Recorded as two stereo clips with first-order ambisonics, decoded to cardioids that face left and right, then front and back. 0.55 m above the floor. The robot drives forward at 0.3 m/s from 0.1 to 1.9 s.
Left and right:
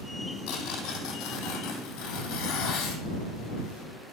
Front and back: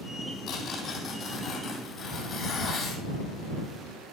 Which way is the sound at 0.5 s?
55° left.